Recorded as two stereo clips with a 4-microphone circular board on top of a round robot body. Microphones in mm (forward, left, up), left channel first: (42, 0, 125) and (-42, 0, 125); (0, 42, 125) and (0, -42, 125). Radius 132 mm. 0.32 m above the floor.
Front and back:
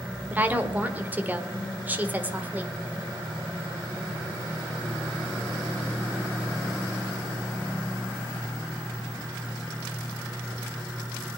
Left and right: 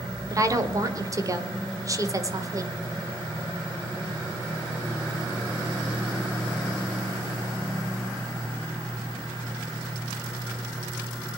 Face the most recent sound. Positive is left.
turn(degrees=-115)